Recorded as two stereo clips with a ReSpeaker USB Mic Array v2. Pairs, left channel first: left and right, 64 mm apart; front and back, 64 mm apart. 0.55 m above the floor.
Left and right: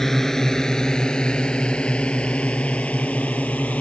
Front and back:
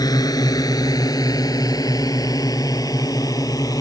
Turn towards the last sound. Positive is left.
turn(degrees=20)